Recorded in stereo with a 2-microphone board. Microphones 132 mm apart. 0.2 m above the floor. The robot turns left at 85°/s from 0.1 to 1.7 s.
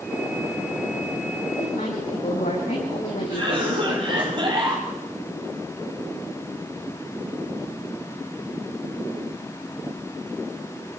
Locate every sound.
1.6 s a woman speaking: 75° left (ahead or behind), 9 m; by 4.3 s 85° left, 9 m
3.3 s a cough: 40° right (ahead or behind), 6.5 m